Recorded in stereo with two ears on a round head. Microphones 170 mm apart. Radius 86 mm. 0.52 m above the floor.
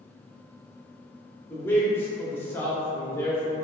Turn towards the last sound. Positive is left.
turn(degrees=15)  # may be behind; listen again after turning